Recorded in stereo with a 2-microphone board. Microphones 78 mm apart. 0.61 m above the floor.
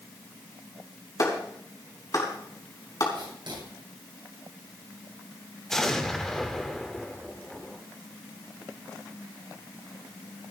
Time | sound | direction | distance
1.2 | a clap | 50° left (ahead or behind) | 4.5 m
3.1 | writing | 70° right (ahead or behind) | 9.5 m
5.7 | an explosion | 5° left (ahead or behind) | 1.4 m